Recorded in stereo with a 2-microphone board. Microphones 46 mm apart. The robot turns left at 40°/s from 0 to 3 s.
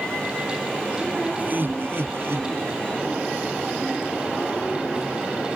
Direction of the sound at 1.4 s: 45° right.